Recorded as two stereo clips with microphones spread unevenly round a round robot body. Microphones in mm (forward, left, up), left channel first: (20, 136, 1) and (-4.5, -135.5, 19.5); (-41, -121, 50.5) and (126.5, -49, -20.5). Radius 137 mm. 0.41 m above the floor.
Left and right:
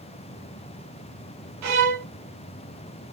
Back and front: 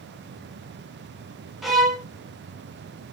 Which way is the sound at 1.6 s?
65° right.